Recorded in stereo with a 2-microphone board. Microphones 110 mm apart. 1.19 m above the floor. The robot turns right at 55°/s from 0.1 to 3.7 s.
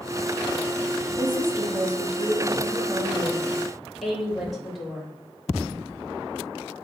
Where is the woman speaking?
140° right, 1.5 m; by 5.1 s straight ahead, 1.5 m.